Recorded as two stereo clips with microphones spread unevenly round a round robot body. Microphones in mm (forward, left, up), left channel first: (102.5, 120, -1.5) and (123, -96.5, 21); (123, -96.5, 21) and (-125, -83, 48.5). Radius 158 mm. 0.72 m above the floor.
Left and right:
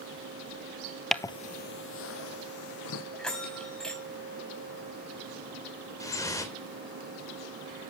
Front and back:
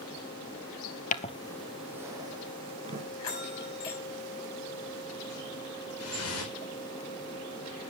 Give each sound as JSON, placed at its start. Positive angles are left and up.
{"t": 1.1, "sound": "footsteps", "azimuth_deg": -10, "distance_m": 0.7}
{"t": 3.2, "sound": "a bell", "azimuth_deg": 10, "distance_m": 5.5}
{"t": 6.0, "sound": "dripping", "azimuth_deg": 20, "distance_m": 3.5}